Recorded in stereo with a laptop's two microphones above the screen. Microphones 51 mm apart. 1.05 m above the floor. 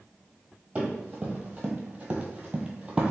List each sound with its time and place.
0.8 s running footsteps: 25° right (ahead or behind), 1.3 m; by 3.1 s 15° right (ahead or behind), 1.2 m